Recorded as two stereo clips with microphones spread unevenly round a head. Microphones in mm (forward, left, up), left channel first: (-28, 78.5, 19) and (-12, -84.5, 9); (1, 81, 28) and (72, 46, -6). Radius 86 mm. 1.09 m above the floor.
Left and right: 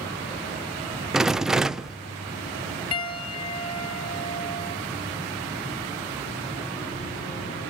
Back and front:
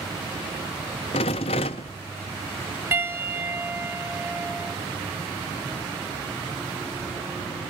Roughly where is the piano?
Ahead left.